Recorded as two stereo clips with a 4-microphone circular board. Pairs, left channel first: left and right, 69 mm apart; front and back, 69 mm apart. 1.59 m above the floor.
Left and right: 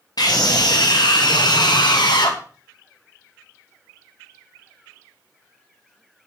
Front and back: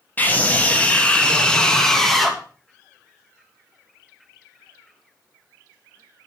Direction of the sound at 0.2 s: 65° left.